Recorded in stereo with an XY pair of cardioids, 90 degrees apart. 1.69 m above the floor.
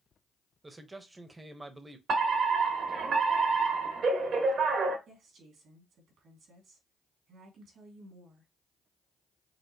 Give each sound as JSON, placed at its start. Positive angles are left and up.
{"t": 0.6, "sound": "a man speaking", "azimuth_deg": -25, "distance_m": 1.0}
{"t": 2.1, "sound": "a fire alarm", "azimuth_deg": -65, "distance_m": 1.6}
{"t": 5.1, "sound": "a woman speaking", "azimuth_deg": -70, "distance_m": 2.5}